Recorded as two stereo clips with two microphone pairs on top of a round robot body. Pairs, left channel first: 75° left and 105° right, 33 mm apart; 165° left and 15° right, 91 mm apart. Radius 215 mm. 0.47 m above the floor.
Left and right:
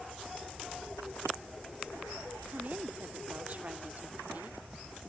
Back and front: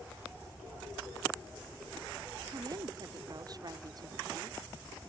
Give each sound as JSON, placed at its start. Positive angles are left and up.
{"t": 2.5, "sound": "a woman speaking", "azimuth_deg": -60}